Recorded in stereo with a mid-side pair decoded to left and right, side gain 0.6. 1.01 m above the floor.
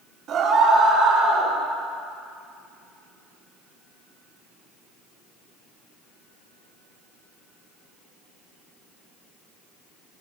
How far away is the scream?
About 2.5 m.